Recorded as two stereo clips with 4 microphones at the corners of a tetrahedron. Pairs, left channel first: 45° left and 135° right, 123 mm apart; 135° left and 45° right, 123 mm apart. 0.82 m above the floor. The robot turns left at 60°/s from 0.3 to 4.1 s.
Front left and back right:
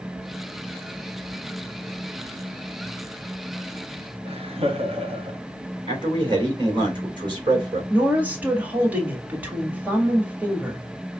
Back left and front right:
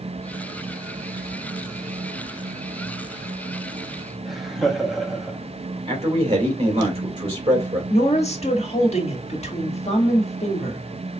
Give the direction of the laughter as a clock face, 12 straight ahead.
4 o'clock.